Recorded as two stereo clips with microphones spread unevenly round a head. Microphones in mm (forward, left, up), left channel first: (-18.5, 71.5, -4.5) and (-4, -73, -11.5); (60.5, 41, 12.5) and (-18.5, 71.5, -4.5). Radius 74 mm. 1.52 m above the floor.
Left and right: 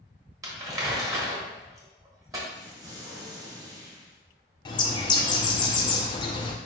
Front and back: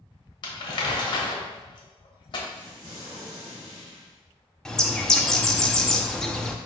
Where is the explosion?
150° right, 1.2 m.